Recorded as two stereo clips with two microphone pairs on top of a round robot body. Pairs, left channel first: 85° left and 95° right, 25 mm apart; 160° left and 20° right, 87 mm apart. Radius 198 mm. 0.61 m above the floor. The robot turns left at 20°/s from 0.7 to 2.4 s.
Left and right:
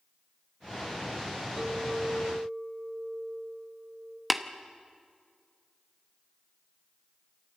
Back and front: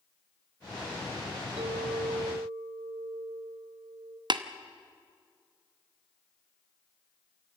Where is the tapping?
Straight ahead, 1.1 m.